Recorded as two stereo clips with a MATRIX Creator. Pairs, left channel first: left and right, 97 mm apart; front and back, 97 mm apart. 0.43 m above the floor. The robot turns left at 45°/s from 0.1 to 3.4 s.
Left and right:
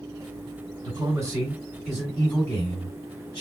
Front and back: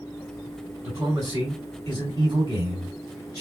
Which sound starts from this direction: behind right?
A man speaking, at 0.8 s.